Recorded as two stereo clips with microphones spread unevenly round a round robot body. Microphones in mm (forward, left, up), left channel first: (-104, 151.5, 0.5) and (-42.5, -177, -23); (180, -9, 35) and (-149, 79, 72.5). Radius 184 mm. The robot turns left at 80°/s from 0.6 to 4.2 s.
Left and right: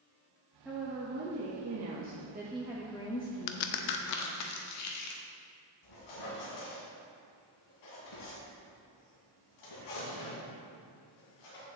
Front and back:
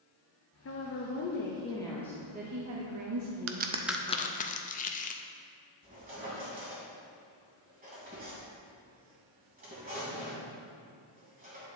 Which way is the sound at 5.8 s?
100° left.